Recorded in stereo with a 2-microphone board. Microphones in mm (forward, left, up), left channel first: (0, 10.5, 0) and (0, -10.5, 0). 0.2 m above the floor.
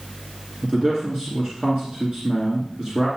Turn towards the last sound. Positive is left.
turn(degrees=-40)  # may be behind; listen again after turning